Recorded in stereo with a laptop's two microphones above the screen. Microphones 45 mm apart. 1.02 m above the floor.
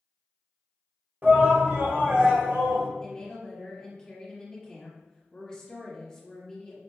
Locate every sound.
1.2 s a shout: 50° right (ahead or behind), 1.3 m; by 2.9 s 70° right (ahead or behind), 1.8 m
3.0 s a woman speaking: 20° left (ahead or behind), 1.5 m